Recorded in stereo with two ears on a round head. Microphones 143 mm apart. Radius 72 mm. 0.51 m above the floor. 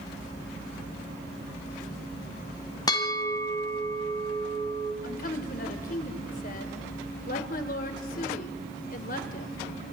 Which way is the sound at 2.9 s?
25° left (ahead or behind).